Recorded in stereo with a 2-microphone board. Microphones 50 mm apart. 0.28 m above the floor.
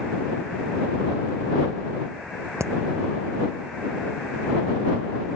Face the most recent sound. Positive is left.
turn(degrees=-70)  # may be behind; listen again after turning